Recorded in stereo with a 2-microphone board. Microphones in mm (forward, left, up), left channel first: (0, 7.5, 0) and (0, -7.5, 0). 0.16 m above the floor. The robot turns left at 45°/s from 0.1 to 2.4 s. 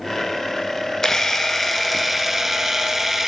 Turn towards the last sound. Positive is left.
turn(degrees=-25)